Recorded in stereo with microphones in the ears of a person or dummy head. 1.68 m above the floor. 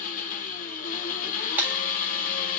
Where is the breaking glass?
10° right (ahead or behind), 1.7 m.